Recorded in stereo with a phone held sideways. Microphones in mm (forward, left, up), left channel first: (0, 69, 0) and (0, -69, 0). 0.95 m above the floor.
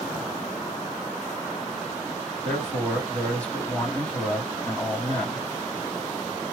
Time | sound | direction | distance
2.4 | a man speaking | 10° left (ahead or behind) | 2.0 m